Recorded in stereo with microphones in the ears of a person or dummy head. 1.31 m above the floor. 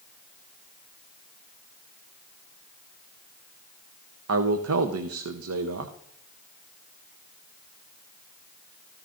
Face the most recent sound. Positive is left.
turn(degrees=-75)  # may be behind; listen again after turning